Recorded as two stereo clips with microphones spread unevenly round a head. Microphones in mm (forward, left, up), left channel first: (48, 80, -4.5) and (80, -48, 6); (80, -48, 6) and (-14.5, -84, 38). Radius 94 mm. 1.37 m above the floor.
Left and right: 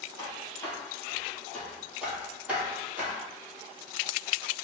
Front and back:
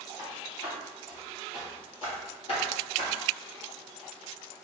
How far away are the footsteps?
About 1.4 m.